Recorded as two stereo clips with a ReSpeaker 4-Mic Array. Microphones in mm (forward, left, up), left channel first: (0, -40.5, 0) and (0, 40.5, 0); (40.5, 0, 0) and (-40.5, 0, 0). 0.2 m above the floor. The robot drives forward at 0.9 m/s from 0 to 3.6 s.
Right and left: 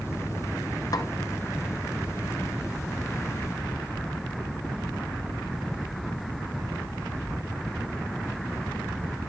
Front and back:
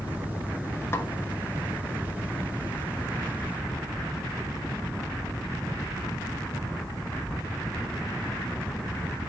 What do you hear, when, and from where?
0.9 s a snare drum: 55° right, 0.8 m; by 1.1 s 65° right, 0.8 m